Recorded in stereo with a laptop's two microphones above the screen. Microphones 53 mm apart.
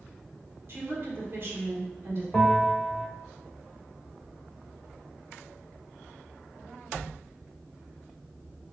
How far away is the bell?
About 1.0 m.